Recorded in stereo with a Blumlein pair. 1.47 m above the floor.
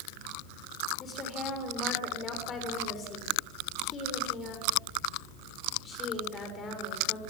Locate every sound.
1.0 s a woman speaking: 20° left, 6.5 m